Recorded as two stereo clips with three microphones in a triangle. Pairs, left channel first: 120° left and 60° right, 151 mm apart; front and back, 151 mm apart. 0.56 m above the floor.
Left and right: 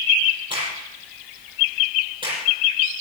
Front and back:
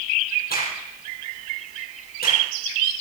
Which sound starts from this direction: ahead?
A crack, at 0.5 s.